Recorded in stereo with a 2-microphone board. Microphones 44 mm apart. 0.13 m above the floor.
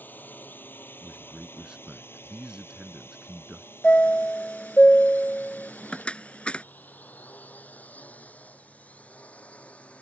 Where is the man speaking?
20° right (ahead or behind).